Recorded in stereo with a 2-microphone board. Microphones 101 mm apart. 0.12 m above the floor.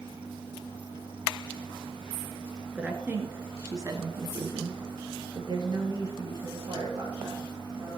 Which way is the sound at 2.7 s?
15° right (ahead or behind).